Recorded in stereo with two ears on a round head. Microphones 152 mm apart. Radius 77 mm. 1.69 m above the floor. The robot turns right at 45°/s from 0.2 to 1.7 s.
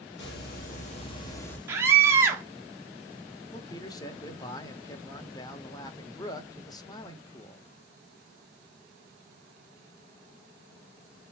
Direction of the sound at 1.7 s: 15° right (ahead or behind).